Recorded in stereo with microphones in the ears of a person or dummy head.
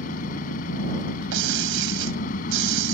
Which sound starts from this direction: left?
An engine running, at 0.0 s.